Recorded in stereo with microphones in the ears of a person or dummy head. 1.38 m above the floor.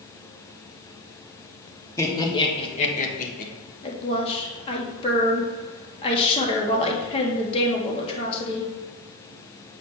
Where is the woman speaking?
35° left (ahead or behind), 1.9 m.